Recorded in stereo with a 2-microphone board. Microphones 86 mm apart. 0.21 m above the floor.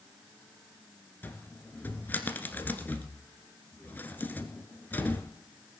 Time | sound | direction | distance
1.2 | a cupboard door | 20° left (ahead or behind) | 1.3 m